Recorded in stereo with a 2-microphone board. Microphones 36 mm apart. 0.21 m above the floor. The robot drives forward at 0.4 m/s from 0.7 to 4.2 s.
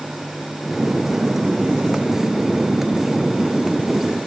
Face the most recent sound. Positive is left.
No sound to turn to.